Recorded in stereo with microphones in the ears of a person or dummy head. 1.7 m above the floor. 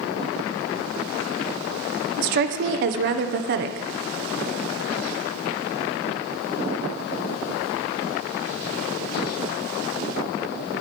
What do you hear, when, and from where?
2.2 s a woman speaking: 55° right (ahead or behind), 0.7 m